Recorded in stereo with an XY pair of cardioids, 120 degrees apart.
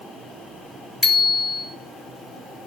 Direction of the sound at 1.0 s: 20° left.